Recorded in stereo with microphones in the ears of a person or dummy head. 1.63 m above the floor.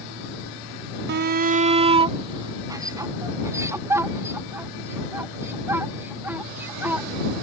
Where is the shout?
60° right (ahead or behind); by 7.1 s 10° right (ahead or behind).